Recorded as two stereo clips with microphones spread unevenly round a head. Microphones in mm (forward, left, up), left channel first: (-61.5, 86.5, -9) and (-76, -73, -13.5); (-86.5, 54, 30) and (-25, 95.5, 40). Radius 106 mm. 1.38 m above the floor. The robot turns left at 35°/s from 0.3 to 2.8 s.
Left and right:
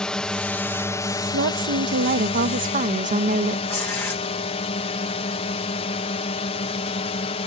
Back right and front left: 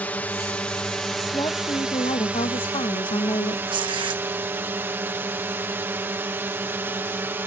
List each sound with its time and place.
0.0 s a drone: 165° left; by 7.5 s 80° left
1.3 s a woman speaking: 85° right; by 3.6 s 135° right
3.7 s tearing paper: 5° left